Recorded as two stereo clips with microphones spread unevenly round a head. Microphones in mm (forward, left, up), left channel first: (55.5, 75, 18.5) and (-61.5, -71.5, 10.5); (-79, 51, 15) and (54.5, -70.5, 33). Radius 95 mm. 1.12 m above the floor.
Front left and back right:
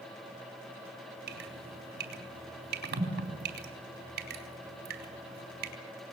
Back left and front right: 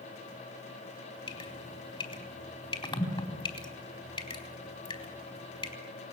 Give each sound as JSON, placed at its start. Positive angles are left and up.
{"t": 1.3, "sound": "dripping", "azimuth_deg": -160, "distance_m": 4.0}